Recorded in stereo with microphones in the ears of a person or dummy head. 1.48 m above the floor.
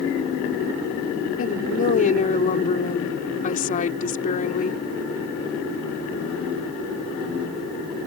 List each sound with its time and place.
1.4 s a woman speaking: 40° left (ahead or behind)